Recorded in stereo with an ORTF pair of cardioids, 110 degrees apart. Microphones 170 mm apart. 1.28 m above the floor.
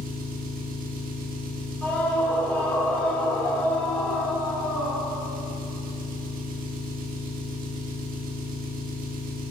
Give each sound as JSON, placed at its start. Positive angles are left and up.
{"t": 0.0, "sound": "an engine running", "azimuth_deg": -55, "distance_m": 1.6}
{"t": 1.8, "sound": "a scream", "azimuth_deg": 10, "distance_m": 4.5}